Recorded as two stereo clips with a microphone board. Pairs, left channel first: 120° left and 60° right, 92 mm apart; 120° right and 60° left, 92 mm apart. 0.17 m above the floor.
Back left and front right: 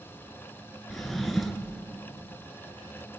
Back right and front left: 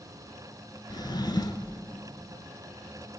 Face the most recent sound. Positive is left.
turn(degrees=-155)